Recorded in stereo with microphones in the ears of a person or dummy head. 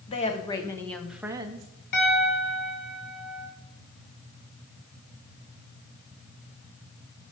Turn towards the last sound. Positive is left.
turn(degrees=60)  # may be behind; listen again after turning